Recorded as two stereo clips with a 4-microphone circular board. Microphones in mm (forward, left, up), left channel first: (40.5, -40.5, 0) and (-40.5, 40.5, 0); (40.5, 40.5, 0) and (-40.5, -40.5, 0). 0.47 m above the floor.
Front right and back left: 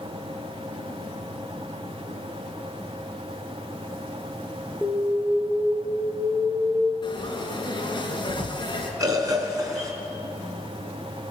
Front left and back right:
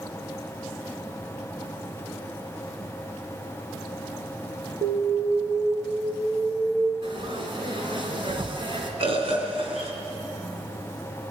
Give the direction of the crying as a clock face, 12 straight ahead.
I don't hear crying.